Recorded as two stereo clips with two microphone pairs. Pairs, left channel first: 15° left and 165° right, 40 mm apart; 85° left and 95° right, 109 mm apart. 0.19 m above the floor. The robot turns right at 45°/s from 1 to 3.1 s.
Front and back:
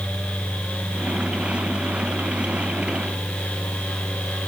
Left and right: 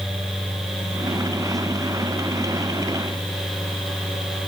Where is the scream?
I don't hear a scream.